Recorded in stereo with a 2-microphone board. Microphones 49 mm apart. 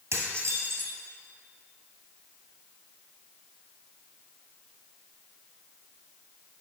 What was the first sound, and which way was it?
Dishes clattering, 70° right (ahead or behind).